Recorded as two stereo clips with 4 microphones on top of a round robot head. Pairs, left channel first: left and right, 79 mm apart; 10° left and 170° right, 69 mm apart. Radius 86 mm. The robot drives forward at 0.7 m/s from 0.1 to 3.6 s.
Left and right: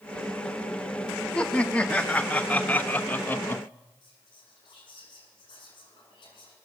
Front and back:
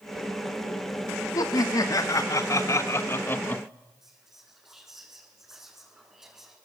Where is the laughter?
15° left, 2.5 m; by 3.6 s 55° left, 1.3 m.